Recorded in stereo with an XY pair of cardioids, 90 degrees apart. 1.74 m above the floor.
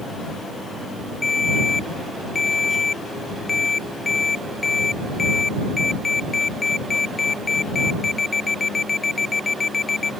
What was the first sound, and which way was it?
A ringtone, 30° left.